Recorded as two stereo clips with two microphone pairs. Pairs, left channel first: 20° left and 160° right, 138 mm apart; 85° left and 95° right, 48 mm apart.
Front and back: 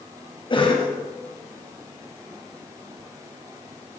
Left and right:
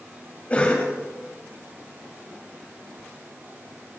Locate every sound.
0.5 s a cough: 40° left, 1.8 m